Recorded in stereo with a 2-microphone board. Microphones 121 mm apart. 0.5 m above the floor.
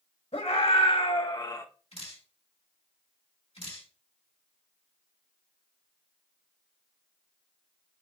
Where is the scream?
60° left (ahead or behind), 2 m; by 1.6 s 25° left (ahead or behind), 1.1 m.